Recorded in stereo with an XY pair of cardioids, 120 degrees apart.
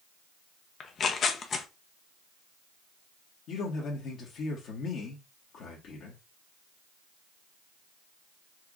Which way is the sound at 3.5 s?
65° left.